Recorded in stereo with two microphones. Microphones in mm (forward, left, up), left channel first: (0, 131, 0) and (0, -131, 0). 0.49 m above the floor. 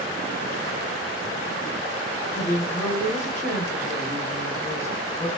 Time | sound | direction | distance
2.3 | a woman speaking | 10° left (ahead or behind) | 2.5 m